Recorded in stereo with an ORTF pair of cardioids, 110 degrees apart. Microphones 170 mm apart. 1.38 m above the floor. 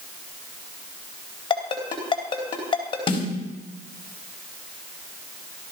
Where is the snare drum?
30° left, 4.5 m.